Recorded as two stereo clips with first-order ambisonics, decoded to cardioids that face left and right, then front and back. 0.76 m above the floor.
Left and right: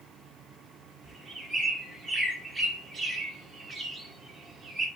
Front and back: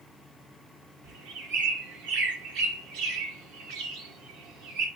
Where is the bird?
160° right, 2.5 m.